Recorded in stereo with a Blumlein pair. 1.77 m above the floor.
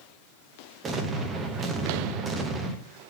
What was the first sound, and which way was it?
An explosion, 20° right.